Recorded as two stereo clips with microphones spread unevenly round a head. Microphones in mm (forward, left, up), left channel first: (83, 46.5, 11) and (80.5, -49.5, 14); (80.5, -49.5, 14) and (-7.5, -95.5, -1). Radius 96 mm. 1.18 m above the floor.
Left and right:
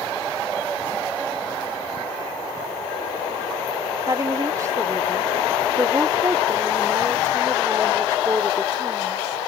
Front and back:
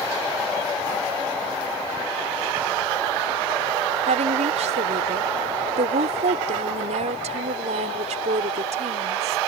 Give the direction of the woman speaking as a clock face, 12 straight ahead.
5 o'clock.